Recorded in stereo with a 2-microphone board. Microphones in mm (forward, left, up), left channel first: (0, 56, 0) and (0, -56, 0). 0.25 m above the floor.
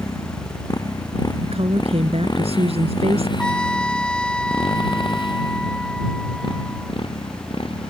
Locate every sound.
0.0 s a motorcycle: 30° left (ahead or behind); by 7.9 s 50° left (ahead or behind)
1.4 s a woman speaking: 60° right (ahead or behind)
3.4 s a trumpet: 10° left (ahead or behind)